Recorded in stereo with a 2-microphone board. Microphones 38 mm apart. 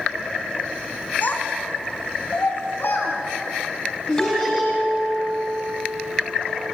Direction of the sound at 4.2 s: 20° left (ahead or behind).